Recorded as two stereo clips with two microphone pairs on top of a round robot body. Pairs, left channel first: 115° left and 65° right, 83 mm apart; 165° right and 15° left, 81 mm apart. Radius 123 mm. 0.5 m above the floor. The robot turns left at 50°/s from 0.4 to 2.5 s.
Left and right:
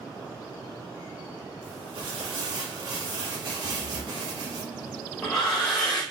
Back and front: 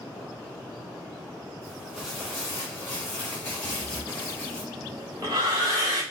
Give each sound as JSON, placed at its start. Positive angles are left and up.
{"t": 1.6, "sound": "crumpling", "azimuth_deg": -55, "distance_m": 1.3}
{"t": 3.6, "sound": "breathing", "azimuth_deg": 40, "distance_m": 2.5}